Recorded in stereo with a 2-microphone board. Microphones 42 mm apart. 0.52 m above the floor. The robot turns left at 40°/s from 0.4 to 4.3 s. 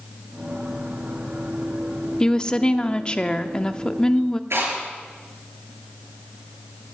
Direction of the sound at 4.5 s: 85° right.